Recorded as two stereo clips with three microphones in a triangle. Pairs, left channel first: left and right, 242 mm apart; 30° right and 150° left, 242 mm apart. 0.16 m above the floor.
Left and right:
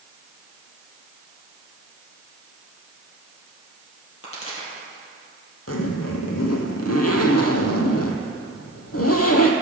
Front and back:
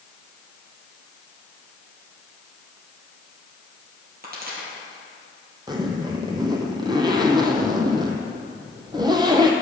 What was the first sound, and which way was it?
A pop, 100° left.